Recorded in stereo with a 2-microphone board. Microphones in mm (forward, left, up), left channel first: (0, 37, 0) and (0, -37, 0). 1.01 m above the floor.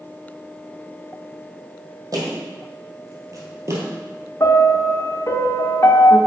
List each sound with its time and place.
2.1 s footsteps: 55° right (ahead or behind), 2.5 m; by 3.9 s 40° right (ahead or behind), 1.3 m
4.4 s a piano: 40° left (ahead or behind), 0.7 m